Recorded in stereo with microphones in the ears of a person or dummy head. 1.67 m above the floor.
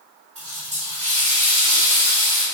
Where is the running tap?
35° right (ahead or behind), 1.2 m.